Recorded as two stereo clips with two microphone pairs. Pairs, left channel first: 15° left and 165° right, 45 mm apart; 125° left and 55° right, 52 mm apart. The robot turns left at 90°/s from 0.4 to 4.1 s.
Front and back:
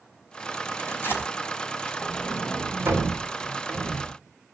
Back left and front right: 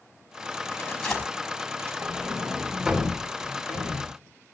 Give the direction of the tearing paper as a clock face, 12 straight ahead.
9 o'clock.